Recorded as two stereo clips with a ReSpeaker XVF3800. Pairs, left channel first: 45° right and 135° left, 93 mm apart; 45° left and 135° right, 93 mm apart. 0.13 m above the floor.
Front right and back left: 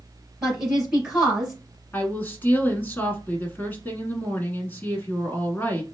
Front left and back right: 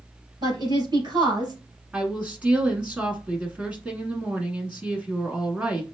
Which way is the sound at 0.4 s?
140° right.